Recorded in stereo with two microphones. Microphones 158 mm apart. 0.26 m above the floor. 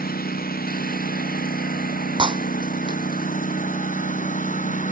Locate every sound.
0.0 s a lawn mower: 85° left; by 4.9 s 60° left (ahead or behind)
2.2 s breaking glass: 35° right (ahead or behind)